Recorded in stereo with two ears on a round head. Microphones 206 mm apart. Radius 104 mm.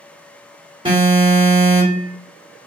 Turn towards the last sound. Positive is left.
turn(degrees=-20)  # may be behind; listen again after turning